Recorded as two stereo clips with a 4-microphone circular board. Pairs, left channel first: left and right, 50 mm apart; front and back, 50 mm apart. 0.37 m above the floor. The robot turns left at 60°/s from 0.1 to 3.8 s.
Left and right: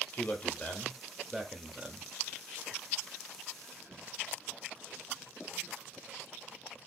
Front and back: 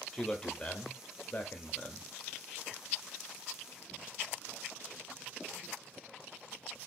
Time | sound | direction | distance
0.1 | a man speaking | 75° left | 0.9 m